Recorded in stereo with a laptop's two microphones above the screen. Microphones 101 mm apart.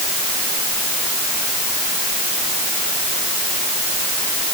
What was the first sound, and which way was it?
Only background noise.